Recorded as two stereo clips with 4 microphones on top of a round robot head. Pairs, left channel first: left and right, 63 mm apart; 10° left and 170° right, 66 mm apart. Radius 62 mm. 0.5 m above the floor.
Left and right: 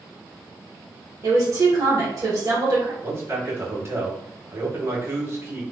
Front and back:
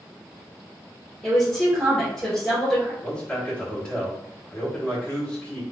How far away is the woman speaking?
About 1.5 m.